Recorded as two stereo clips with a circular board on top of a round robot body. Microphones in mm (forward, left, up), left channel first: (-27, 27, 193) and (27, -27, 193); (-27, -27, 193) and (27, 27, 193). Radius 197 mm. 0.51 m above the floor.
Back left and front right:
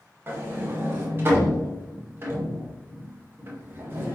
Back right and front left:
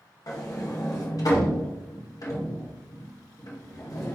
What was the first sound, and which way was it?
A sliding door, 100° right.